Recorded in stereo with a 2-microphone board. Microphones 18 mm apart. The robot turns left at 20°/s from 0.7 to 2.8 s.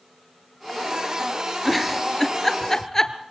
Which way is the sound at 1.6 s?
5° left (ahead or behind).